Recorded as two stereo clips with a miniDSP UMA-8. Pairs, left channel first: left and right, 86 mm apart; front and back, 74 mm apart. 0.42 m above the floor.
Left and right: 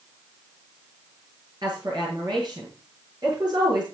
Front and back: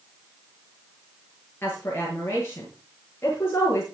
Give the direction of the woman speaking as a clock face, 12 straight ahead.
2 o'clock.